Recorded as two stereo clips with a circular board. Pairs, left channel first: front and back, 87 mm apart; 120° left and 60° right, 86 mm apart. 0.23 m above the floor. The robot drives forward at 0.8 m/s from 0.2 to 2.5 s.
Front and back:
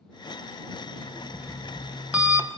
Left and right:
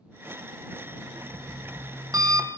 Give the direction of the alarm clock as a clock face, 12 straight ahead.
3 o'clock.